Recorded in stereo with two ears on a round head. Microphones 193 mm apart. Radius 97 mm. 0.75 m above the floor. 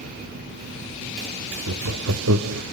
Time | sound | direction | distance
1.7 | laughter | 70° right (ahead or behind) | 1.2 m